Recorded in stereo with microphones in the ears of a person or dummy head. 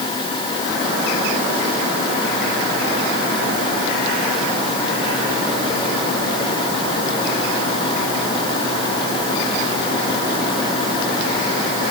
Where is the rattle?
I don't hear a rattle.